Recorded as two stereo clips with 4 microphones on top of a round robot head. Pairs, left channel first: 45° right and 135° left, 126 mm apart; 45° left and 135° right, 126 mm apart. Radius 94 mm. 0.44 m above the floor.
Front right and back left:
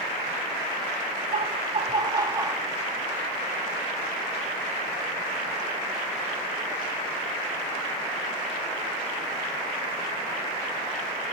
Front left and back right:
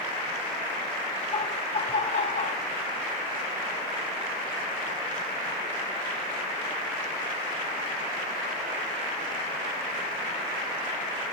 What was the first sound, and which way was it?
Laughter, 100° left.